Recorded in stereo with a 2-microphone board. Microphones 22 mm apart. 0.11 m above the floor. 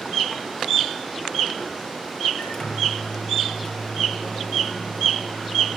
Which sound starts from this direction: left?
A microwave, at 2.4 s.